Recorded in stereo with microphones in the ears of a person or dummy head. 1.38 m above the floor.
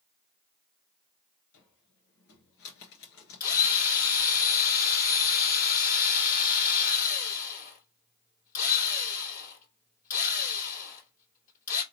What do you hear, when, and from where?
1.5 s a cupboard door: 80° left, 2 m
3.4 s a drill: 45° left (ahead or behind), 2.5 m